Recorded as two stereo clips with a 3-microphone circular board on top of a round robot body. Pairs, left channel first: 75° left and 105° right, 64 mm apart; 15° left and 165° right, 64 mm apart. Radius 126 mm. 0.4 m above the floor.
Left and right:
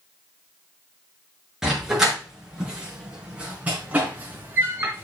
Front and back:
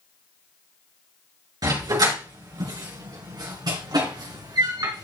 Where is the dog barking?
170° left, 3.5 m; by 5.1 s 160° right, 2.5 m.